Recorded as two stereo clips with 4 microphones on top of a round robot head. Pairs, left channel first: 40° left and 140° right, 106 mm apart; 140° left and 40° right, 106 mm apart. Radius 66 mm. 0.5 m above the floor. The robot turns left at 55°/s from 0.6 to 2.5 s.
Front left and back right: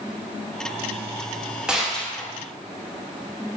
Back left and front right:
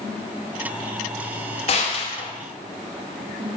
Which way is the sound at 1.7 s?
140° left.